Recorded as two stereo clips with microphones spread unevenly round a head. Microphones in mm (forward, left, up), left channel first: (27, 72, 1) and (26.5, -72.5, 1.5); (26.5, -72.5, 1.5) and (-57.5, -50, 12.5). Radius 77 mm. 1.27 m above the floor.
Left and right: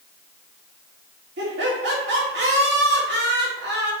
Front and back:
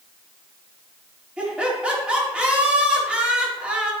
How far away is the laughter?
About 3 m.